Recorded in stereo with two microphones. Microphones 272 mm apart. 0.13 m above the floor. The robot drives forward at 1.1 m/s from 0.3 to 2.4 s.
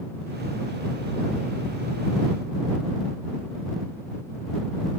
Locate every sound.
Only background noise.